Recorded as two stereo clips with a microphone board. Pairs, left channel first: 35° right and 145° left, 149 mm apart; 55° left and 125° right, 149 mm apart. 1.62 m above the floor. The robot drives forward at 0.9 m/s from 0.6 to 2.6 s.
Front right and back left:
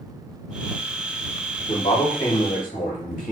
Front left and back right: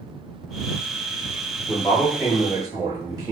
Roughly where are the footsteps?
No footsteps in this recording.